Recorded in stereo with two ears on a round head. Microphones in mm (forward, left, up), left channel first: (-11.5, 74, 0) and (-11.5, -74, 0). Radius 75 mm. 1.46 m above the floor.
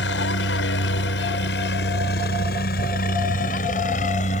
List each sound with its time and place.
0.0 s a helicopter: 80° left; by 4.4 s 40° left (ahead or behind)